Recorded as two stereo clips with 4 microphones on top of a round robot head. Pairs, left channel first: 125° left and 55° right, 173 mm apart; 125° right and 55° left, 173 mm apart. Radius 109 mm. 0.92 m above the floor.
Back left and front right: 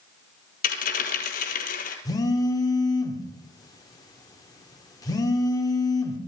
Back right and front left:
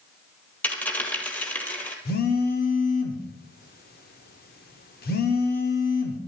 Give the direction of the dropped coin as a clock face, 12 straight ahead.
7 o'clock.